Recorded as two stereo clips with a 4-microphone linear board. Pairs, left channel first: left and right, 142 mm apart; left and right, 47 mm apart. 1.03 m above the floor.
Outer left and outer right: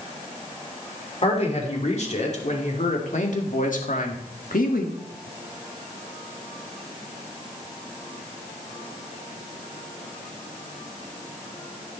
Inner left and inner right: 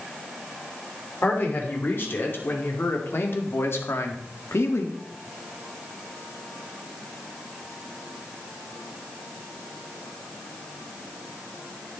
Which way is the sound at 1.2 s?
45° left (ahead or behind).